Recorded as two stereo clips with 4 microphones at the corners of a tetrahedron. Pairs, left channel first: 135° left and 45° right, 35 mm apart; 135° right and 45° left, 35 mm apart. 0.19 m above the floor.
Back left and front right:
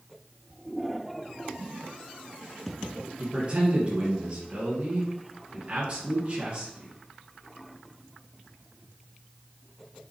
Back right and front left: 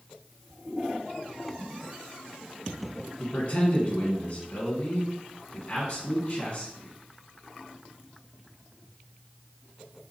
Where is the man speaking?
90° right, 1.9 m.